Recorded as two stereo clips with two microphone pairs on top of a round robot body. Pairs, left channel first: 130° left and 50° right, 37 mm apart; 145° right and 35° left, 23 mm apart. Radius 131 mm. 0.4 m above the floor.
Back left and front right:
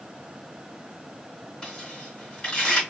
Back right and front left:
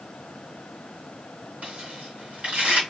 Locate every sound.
1.6 s tearing paper: 60° left, 2 m